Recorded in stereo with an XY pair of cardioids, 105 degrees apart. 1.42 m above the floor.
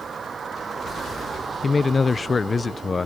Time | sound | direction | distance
0.0 | a vehicle | 40° right | ?
1.6 | a man speaking | 30° left | ?